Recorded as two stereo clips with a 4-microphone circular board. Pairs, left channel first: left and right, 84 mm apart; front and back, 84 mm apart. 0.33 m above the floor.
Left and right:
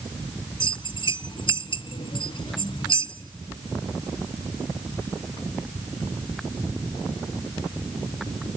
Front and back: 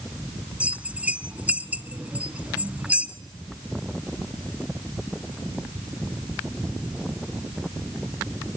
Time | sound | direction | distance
0.6 | a bell | 105° left | 0.5 m